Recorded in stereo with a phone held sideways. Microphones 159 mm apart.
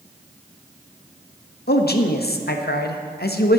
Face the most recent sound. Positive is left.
turn(degrees=85)